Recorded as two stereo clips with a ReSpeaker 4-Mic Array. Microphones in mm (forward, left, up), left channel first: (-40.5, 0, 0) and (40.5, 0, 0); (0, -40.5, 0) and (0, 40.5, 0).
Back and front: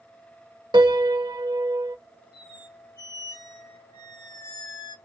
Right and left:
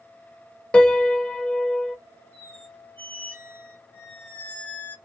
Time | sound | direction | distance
0.7 | a piano | 15° right | 0.5 m
2.3 | a squeak | 155° right | 1.4 m